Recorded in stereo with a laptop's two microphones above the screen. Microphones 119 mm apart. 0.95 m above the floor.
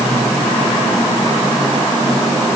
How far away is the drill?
I don't hear a drill.